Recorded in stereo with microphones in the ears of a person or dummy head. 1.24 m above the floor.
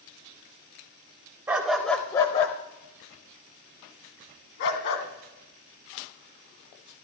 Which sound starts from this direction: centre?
A dog barking, at 1.5 s.